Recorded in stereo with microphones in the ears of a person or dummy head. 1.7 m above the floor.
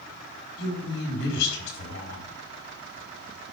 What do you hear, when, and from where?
0.6 s a woman speaking: 70° left (ahead or behind), 4.5 m